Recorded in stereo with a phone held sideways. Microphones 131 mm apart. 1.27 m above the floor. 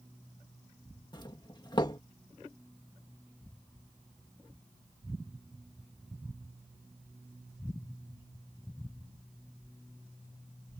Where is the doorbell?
35° left (ahead or behind).